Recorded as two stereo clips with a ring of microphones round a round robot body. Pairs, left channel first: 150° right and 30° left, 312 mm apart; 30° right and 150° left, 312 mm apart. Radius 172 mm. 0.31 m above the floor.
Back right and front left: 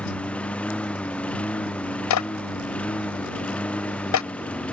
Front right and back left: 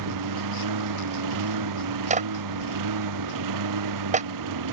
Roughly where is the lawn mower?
Behind left.